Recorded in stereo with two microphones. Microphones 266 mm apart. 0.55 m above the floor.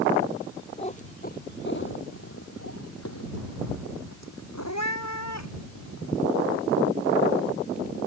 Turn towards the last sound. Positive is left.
turn(degrees=80)